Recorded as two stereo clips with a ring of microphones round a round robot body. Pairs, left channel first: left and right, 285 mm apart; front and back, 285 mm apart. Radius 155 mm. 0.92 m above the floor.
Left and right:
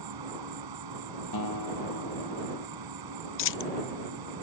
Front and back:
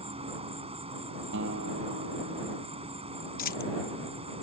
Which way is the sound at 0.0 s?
110° right.